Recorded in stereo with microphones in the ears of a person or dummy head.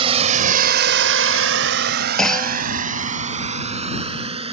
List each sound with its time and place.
0.0 s a drone: 35° right (ahead or behind)
2.2 s a clunk: 5° left (ahead or behind)